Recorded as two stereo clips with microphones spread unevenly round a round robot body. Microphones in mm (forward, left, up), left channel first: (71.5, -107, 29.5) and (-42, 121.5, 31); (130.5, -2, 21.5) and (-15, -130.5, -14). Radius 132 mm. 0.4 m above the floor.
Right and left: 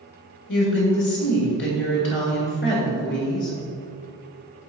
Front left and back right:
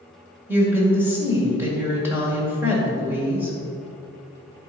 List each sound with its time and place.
0.5 s a woman speaking: 75° right, 1.9 m